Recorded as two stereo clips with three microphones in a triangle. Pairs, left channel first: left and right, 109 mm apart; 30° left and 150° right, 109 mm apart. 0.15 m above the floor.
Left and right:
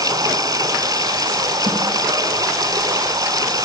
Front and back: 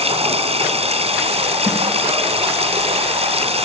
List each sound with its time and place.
0.0 s running water: 140° right, 1.8 m
1.7 s a snare drum: 75° right, 8.5 m